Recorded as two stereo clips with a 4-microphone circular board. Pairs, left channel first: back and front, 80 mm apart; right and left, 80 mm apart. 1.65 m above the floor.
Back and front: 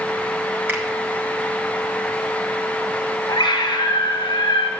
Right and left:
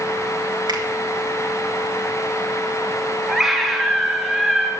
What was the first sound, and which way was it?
A finger snap, 60° left.